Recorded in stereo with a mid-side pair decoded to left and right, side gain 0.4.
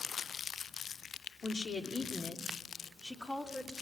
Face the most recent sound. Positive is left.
turn(degrees=15)